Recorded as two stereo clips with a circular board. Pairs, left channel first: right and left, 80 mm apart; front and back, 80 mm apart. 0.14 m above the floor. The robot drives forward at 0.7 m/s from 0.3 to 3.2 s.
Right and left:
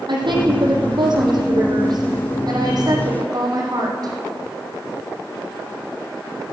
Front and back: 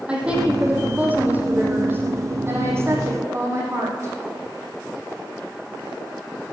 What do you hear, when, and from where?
0.1 s a woman speaking: 105° left, 4.5 m; by 4.1 s 125° left, 5.5 m